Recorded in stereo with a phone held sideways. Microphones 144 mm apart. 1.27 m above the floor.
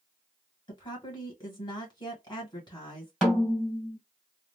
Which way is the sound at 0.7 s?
25° left (ahead or behind).